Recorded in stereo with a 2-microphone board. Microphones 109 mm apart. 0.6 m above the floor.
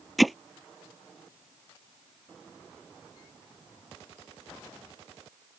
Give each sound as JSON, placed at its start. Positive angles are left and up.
{"t": 0.2, "sound": "hammering", "side_deg": 0}